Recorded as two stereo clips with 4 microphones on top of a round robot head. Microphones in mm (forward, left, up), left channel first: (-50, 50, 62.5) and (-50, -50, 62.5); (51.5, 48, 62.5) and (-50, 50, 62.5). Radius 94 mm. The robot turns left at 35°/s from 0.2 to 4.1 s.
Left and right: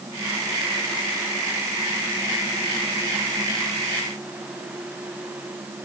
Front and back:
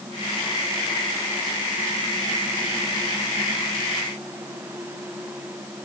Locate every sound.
Only background noise.